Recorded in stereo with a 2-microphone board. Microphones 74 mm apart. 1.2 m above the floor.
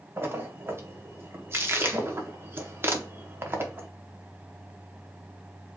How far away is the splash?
About 1.0 m.